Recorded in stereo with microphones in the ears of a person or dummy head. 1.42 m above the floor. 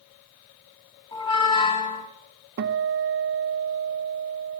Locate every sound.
1.1 s a squeak: 25° left (ahead or behind), 1.0 m
2.6 s a guitar: 60° right (ahead or behind), 0.8 m